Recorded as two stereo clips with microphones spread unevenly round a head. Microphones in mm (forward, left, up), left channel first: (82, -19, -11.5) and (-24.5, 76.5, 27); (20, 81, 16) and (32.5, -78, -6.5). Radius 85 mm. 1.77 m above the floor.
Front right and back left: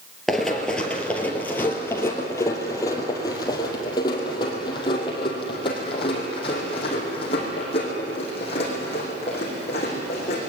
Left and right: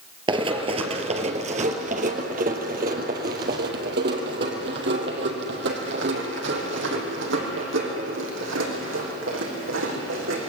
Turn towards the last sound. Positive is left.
turn(degrees=-105)